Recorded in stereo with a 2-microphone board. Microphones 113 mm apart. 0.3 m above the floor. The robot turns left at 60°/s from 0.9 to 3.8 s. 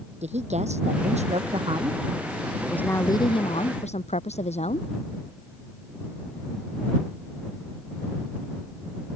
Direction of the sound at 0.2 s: 80° right.